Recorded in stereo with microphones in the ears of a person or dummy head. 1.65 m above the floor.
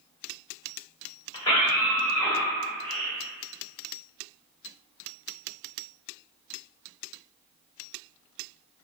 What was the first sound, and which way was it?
A scream, 30° left (ahead or behind).